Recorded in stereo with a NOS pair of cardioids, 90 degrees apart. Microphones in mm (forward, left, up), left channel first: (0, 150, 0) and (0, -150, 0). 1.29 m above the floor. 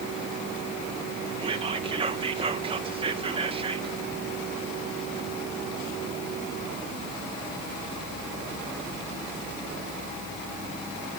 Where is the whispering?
20° right, 0.6 m.